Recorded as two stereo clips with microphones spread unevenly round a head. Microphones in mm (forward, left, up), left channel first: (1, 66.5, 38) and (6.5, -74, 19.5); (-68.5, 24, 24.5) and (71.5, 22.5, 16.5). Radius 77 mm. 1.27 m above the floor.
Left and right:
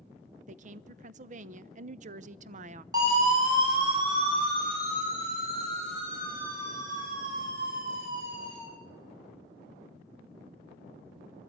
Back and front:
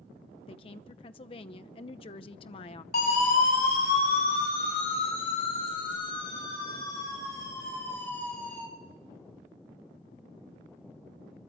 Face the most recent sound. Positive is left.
turn(degrees=-95)